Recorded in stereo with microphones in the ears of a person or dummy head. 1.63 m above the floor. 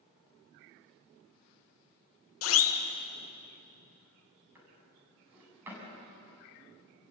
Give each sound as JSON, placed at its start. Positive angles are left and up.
{"t": 2.4, "sound": "a siren", "side_deg": 75, "distance_m": 2.0}
{"t": 4.5, "sound": "a drawer", "side_deg": -15, "distance_m": 7.5}